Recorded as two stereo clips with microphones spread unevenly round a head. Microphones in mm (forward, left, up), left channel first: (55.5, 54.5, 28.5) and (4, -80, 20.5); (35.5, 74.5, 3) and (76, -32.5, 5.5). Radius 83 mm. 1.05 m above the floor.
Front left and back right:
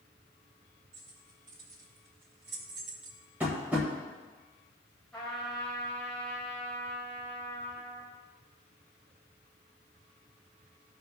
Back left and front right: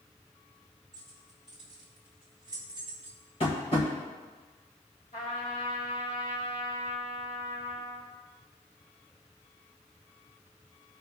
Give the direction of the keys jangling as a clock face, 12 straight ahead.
5 o'clock.